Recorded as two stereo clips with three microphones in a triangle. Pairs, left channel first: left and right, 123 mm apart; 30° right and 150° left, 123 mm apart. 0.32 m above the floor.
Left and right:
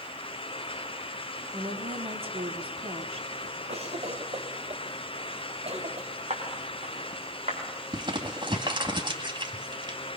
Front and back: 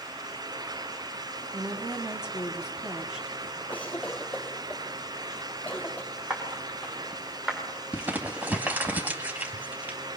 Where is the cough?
105° right, 2.5 m.